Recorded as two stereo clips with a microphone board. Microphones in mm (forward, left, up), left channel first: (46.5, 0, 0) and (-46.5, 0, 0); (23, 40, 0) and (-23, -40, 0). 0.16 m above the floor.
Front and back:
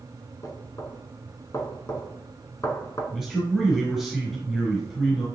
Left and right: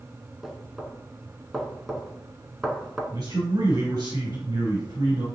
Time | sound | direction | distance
0.4 | knocking | 35° right | 1.0 m
3.1 | a man speaking | 85° right | 2 m